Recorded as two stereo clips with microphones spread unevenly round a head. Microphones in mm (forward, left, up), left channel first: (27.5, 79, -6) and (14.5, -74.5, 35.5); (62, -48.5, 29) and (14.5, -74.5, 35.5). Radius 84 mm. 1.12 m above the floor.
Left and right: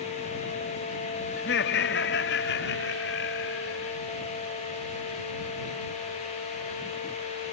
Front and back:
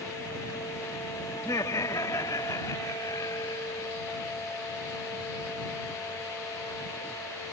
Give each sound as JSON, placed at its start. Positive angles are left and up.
{"t": 1.4, "sound": "laughter", "azimuth_deg": 85}